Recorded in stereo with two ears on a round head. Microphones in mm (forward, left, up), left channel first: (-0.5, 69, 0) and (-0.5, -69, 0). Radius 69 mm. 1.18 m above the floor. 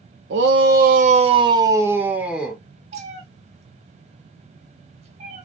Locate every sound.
0.3 s a shout: 85° right, 0.5 m; by 2.6 s 5° right (ahead or behind), 1.1 m
2.9 s a cat meowing: 45° right (ahead or behind), 0.8 m